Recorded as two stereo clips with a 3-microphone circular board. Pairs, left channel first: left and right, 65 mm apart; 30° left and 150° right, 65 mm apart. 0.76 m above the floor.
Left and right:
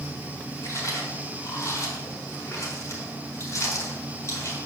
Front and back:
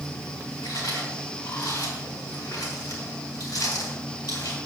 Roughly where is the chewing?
Ahead left.